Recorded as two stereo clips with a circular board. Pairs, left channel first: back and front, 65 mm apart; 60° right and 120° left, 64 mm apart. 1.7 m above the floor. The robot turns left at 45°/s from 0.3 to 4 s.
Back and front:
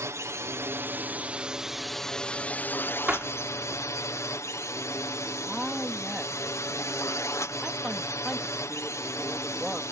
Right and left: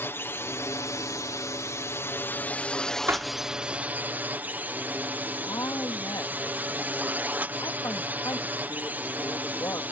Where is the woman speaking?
85° right.